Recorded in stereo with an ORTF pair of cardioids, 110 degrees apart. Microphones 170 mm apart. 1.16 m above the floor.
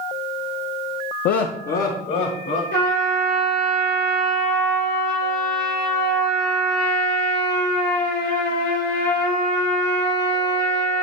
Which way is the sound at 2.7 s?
65° left.